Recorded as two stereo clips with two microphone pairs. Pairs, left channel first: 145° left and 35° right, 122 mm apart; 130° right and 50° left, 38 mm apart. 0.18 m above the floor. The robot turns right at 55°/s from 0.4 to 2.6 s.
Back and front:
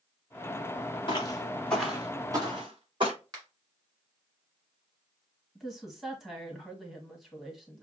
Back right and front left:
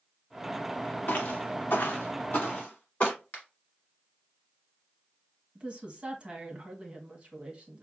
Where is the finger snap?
85° right, 1.7 m.